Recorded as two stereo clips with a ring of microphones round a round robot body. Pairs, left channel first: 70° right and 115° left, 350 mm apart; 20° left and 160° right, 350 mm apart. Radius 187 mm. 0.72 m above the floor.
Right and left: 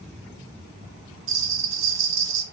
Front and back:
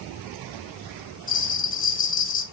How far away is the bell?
About 1.6 m.